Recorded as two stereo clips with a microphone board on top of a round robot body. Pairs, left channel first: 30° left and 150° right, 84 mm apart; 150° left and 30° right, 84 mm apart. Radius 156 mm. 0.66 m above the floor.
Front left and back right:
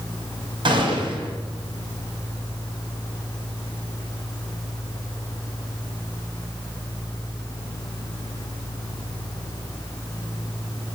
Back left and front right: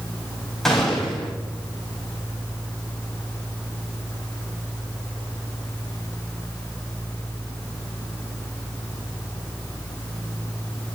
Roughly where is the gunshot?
Behind right.